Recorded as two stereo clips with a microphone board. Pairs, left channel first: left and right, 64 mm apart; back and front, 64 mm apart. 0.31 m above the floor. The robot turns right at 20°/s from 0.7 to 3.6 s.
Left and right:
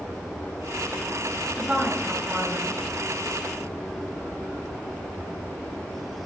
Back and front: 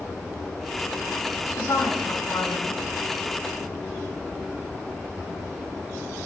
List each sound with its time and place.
1.6 s a woman speaking: 160° right, 2.5 m; by 2.8 s 140° right, 2.5 m